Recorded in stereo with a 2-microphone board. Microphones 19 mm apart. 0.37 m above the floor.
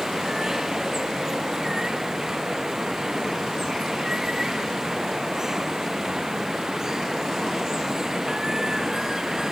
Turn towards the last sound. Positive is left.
turn(degrees=-30)  # may be behind; listen again after turning